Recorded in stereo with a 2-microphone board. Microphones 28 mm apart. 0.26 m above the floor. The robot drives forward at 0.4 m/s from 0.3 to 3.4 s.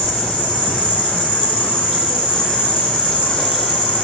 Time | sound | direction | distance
0.0 | an insect | 55° left (ahead or behind) | 5.5 m